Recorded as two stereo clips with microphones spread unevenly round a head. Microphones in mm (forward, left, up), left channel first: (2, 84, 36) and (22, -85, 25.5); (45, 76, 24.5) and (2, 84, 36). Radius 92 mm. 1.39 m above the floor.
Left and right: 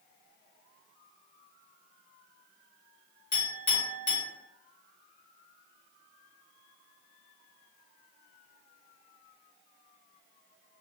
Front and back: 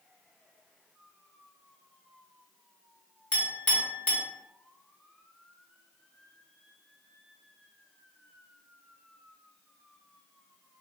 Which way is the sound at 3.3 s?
50° left.